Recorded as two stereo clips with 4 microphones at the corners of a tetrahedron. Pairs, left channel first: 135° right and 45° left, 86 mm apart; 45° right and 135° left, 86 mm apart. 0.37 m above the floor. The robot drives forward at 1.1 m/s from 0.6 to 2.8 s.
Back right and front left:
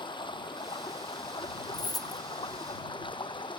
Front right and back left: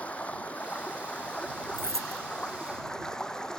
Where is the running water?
120° right; by 3.6 s 125° right.